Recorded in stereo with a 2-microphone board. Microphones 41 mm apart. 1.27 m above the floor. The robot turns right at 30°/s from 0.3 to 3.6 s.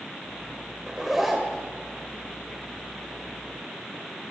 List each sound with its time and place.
0.9 s a zipper: 15° right (ahead or behind), 1.6 m; by 1.7 s 5° left (ahead or behind), 1.6 m